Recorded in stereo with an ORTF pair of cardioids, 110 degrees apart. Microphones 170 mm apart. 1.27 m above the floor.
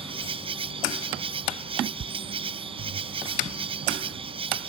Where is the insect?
35° right.